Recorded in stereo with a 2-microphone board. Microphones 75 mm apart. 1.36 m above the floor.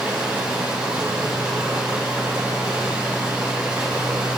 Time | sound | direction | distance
0.0 | running water | 15° right (ahead or behind) | 2.5 m